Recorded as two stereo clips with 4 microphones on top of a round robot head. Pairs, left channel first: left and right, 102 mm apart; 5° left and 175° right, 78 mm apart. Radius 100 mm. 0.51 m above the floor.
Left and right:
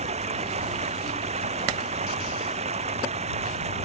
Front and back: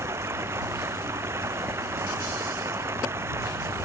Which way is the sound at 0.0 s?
110° right.